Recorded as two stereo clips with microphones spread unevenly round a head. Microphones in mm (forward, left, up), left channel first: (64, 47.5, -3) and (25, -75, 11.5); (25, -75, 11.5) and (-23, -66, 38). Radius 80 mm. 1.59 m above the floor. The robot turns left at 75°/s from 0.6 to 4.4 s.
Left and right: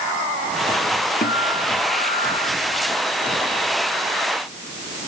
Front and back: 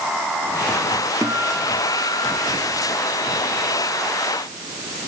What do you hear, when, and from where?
1.2 s a guitar: 110° left; by 2.5 s 15° left